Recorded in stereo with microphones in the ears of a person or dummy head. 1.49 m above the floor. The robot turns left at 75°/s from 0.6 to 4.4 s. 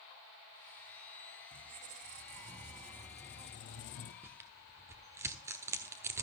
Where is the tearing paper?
10° right (ahead or behind), 1.2 m; by 6.2 s 15° right (ahead or behind), 1.2 m.